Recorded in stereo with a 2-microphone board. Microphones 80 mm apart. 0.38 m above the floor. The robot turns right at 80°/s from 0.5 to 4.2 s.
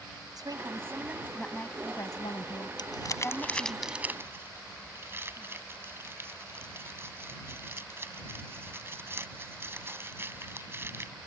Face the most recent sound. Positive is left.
turn(degrees=-35)  # may be behind; listen again after turning